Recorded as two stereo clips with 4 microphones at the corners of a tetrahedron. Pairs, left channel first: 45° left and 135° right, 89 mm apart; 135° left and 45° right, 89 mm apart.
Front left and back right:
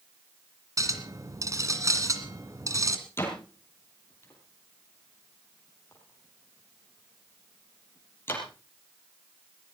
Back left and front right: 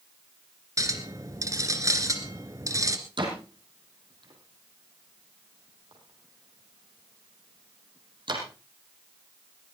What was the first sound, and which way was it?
A clink, 90° right.